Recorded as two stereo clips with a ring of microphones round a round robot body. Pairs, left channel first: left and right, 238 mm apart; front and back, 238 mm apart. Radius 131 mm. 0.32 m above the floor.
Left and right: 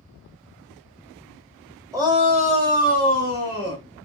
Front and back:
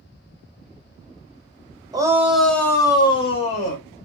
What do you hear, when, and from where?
1.9 s a shout: 140° right, 1.0 m; by 3.8 s 55° right, 1.7 m